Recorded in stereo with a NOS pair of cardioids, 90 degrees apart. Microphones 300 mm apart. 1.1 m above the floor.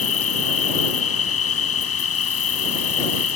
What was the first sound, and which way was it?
An insect, 50° left.